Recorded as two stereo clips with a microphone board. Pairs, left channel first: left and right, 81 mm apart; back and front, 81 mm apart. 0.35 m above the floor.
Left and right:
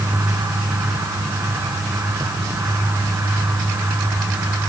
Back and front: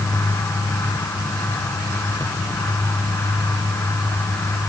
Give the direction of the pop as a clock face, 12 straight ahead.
No pop in this recording.